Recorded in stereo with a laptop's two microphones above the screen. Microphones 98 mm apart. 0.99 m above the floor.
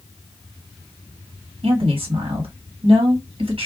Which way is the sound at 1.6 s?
75° right (ahead or behind).